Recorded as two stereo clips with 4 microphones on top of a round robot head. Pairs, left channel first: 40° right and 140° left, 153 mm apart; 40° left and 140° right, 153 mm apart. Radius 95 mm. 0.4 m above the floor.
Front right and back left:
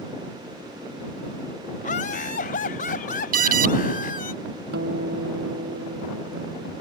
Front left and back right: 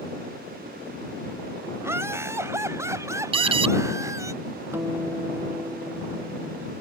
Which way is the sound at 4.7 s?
145° left.